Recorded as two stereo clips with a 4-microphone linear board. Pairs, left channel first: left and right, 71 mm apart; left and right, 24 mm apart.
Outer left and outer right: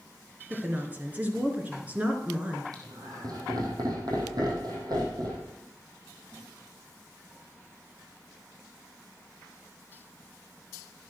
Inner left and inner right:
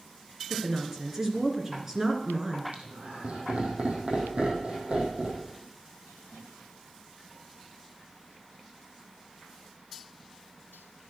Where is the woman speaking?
25° right (ahead or behind), 2.0 m.